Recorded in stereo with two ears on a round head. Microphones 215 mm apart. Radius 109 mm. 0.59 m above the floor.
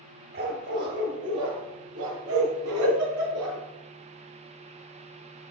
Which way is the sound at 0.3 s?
45° right (ahead or behind).